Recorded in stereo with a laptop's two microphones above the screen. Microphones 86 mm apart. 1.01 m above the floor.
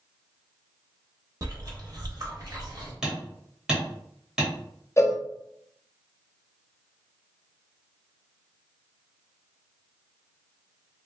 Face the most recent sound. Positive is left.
turn(degrees=35)  # may be behind; listen again after turning